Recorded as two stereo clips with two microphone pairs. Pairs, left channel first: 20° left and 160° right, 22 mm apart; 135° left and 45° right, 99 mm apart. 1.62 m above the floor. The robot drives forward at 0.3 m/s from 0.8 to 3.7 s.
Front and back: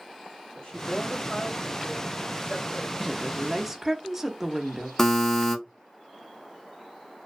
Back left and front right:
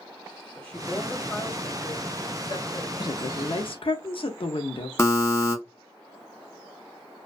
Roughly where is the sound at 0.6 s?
Ahead left.